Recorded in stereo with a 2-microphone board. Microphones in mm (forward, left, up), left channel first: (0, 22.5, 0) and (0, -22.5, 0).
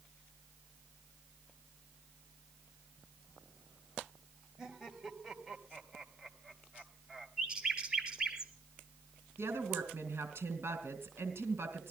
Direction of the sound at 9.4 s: 75° right (ahead or behind).